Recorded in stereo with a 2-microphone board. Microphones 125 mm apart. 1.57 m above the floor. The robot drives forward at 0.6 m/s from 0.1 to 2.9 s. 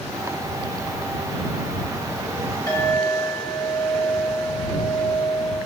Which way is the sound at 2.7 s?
30° left (ahead or behind).